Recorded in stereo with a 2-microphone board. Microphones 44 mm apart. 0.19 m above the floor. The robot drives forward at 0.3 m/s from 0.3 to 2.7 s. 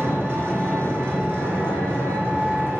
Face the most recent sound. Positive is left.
turn(degrees=-55)  # may be behind; listen again after turning